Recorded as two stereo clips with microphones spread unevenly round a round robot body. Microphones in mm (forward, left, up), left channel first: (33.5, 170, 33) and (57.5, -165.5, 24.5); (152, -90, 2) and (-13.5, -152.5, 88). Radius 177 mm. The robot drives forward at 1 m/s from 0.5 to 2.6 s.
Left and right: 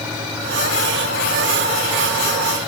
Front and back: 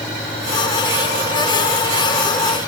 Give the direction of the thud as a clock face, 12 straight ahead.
No thud in this recording.